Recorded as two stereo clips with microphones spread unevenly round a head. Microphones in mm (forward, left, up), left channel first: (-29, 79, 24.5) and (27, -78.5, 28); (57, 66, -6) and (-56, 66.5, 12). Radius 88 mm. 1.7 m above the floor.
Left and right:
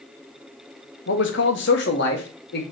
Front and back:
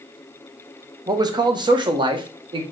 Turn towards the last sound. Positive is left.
turn(degrees=140)